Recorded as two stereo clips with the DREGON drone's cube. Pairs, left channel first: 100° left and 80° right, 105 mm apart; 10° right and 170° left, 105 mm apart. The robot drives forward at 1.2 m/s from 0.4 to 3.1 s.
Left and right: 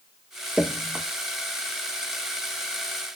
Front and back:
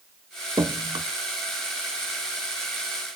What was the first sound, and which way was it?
Dripping, 155° right.